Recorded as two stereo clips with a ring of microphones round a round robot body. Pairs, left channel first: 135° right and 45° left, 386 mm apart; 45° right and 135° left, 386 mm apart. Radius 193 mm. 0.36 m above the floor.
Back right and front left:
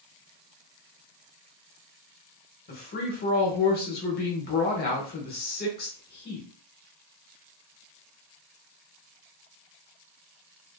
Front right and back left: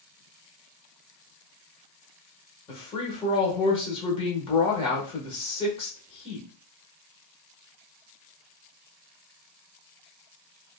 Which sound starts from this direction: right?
A woman speaking, at 2.7 s.